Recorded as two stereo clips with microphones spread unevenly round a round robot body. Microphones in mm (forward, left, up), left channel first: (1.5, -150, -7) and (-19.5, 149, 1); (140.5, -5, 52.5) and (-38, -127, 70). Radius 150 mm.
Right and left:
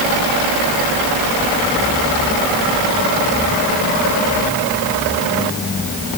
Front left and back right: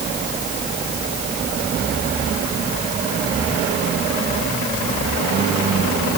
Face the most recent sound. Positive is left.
No sound to turn to.